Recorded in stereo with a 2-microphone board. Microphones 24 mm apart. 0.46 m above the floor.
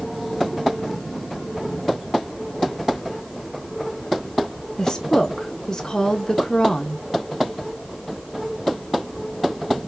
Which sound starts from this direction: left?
A woman speaking, at 4.8 s.